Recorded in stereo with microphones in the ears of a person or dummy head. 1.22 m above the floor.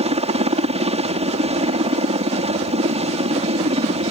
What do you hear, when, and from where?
0.0 s a helicopter: 30° right (ahead or behind)